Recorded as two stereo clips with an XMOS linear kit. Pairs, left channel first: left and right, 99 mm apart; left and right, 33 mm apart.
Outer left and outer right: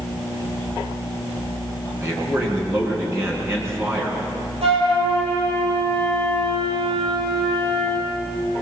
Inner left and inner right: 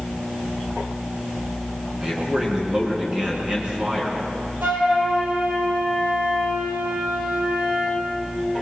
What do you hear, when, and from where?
2.0 s a man speaking: 30° right (ahead or behind), 6 m
4.6 s a flute: 85° right, 7 m